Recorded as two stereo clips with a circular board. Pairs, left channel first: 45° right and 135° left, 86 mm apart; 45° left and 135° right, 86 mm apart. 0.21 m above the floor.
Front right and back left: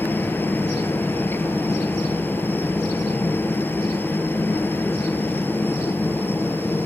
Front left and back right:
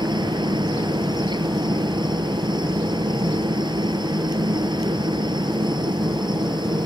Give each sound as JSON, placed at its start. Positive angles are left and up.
{"t": 0.0, "sound": "a helicopter", "azimuth_deg": -110}